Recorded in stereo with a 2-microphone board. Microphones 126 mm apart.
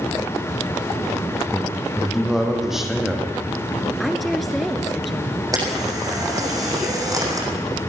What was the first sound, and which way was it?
A man speaking, 5° right (ahead or behind).